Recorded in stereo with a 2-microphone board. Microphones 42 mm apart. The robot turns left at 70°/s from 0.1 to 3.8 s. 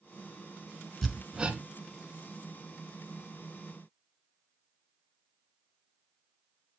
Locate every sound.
1.0 s hammering: 5° left (ahead or behind), 1.1 m; by 1.6 s 40° right (ahead or behind), 1.1 m